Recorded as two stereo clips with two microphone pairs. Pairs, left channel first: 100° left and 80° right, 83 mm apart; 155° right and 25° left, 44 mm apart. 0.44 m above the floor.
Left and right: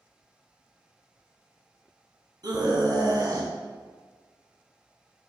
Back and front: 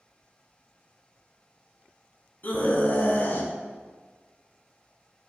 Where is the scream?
110° right, 3 m; by 3.5 s 120° right, 3 m.